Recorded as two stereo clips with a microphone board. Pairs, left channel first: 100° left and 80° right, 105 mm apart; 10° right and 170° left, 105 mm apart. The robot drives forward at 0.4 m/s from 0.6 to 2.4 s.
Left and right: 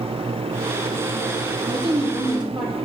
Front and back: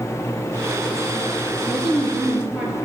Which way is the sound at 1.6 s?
105° right.